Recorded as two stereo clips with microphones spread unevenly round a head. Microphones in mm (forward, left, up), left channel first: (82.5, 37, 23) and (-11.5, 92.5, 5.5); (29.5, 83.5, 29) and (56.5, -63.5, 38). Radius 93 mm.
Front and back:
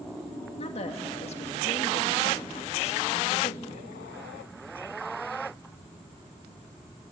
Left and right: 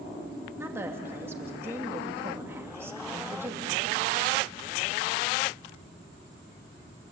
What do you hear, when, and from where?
0.6 s a woman speaking: 5° right, 3 m